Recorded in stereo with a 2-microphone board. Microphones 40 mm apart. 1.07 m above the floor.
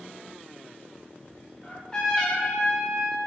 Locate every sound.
1.6 s a trumpet: 15° left (ahead or behind), 0.7 m